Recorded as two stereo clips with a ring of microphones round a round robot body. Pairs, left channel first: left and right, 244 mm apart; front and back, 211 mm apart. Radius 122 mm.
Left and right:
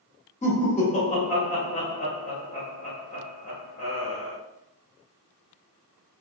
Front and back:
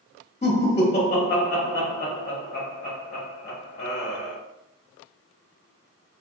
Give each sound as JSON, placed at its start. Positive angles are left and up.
{"t": 0.4, "sound": "laughter", "azimuth_deg": 40, "distance_m": 0.9}